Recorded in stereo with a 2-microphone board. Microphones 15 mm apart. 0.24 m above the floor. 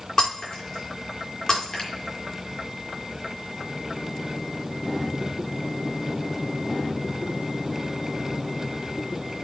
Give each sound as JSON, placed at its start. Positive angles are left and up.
{"t": 0.2, "sound": "breaking glass", "side_deg": 35, "distance_m": 5.0}
{"t": 1.8, "sound": "a finger snap", "side_deg": 40, "distance_m": 3.5}